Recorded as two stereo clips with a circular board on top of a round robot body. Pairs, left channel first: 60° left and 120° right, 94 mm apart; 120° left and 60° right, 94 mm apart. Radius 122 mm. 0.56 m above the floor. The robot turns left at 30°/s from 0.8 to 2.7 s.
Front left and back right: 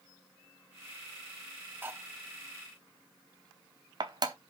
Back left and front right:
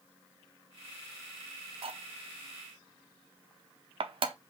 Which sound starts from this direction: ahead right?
Cutlery clinking, at 1.8 s.